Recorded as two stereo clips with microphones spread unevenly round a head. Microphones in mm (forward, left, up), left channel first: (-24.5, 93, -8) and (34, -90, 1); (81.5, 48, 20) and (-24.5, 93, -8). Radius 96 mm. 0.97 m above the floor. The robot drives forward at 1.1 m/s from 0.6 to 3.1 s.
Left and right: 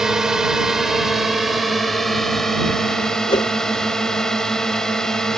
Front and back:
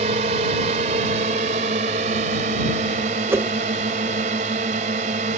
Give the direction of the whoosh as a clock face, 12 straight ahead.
7 o'clock.